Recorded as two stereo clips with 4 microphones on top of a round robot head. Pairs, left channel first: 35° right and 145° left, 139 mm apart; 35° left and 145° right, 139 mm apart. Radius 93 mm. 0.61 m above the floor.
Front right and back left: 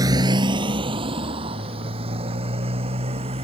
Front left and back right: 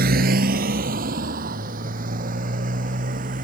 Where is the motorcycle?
150° right; by 3.5 s 170° right.